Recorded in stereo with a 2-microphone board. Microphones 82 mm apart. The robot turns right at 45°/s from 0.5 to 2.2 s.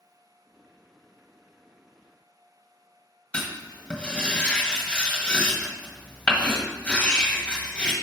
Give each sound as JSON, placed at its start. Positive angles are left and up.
{"t": 3.3, "sound": "writing", "side_deg": 15, "distance_m": 1.5}